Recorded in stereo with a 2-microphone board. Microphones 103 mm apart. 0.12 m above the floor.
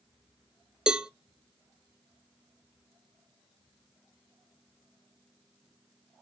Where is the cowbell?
10° right (ahead or behind), 0.5 m.